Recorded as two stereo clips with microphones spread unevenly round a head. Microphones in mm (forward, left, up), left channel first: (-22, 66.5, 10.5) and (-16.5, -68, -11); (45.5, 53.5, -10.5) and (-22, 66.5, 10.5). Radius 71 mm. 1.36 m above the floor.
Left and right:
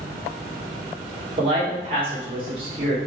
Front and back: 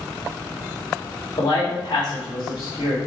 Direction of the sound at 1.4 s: 35° right.